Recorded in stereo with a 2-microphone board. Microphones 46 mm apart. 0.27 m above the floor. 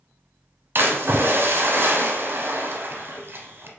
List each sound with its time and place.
0.8 s a splash: 55° right (ahead or behind), 0.7 m